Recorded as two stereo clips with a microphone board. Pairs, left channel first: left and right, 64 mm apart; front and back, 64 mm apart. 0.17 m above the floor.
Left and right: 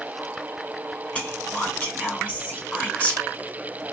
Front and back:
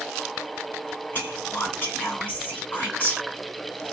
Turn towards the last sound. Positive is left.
turn(degrees=40)